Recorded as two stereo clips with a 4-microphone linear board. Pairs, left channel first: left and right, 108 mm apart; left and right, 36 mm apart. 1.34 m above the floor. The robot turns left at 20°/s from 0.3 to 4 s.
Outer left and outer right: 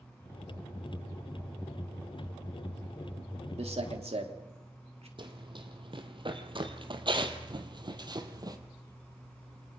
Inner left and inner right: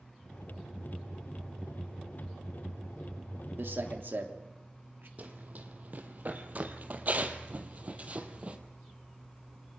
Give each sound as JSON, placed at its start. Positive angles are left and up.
{"t": 3.6, "sound": "a man speaking", "side_deg": -80, "distance_m": 3.0}
{"t": 5.2, "sound": "running footsteps", "side_deg": -50, "distance_m": 2.5}